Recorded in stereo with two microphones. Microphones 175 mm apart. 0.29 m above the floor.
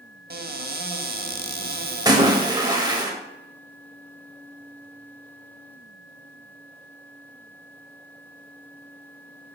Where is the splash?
20° right (ahead or behind), 0.7 m.